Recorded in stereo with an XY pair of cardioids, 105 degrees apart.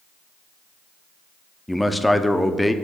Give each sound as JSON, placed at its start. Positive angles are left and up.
{"t": 1.7, "sound": "a man speaking", "azimuth_deg": 5, "distance_m": 0.6}